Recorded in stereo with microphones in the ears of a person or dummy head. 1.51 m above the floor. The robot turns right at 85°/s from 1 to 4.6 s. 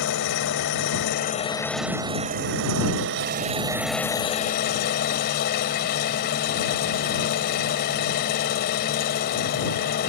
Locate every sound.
0.0 s an engine running: 115° left; by 10.1 s 60° left